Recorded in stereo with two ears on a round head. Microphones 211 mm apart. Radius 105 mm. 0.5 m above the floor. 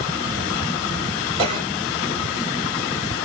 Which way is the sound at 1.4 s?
25° right (ahead or behind).